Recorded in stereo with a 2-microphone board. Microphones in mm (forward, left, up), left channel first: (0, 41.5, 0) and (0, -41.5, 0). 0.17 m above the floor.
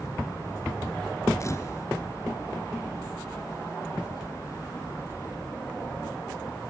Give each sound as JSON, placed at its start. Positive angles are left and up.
{"t": 1.4, "sound": "a camera shutter", "side_deg": 40, "distance_m": 0.9}